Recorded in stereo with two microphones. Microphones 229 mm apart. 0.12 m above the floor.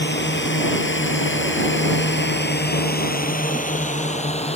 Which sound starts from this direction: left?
A drone, at 0.0 s.